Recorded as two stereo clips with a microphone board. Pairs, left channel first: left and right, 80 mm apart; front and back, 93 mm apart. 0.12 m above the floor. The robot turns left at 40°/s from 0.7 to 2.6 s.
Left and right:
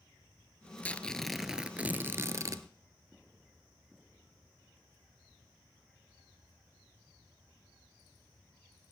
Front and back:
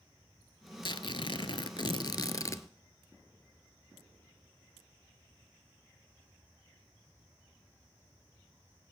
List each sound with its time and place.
0.8 s tearing paper: 20° left, 0.5 m; by 2.6 s 50° right, 0.5 m